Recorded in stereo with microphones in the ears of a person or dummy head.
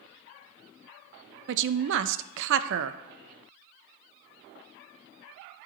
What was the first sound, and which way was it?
A woman speaking, 65° right (ahead or behind).